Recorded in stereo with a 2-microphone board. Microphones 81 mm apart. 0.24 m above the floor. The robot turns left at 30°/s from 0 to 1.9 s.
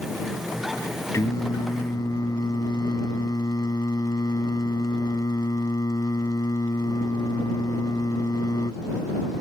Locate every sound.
1.1 s singing: 40° left (ahead or behind); by 8.8 s 55° left (ahead or behind)